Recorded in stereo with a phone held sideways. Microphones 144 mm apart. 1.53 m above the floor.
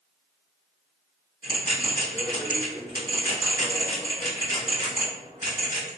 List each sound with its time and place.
1.4 s a bell: 80° left, 1.8 m